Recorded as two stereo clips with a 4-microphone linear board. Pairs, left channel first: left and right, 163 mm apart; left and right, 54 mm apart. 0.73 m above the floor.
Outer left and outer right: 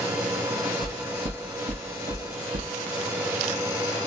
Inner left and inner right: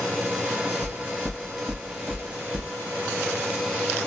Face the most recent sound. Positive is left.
turn(degrees=-65)  # may be behind; listen again after turning